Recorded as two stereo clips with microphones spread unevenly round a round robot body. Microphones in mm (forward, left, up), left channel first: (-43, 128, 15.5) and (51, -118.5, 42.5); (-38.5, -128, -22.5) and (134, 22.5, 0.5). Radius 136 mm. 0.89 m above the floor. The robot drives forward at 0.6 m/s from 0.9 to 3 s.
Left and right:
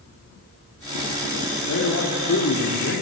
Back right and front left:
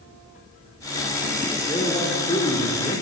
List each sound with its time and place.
1.7 s a man speaking: 150° left, 2.5 m; by 3.0 s 155° left, 3.5 m